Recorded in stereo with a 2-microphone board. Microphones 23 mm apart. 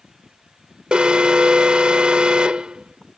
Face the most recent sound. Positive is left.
turn(degrees=-50)  # may be behind; listen again after turning